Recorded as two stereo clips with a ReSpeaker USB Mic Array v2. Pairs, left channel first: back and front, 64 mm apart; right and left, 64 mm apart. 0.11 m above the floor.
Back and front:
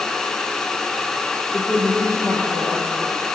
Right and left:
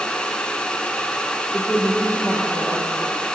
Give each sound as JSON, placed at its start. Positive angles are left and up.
{"t": 1.5, "sound": "a woman speaking", "azimuth_deg": -150, "distance_m": 3.0}